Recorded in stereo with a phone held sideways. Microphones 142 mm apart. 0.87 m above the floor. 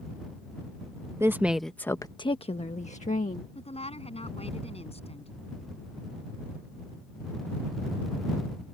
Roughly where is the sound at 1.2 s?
Centre.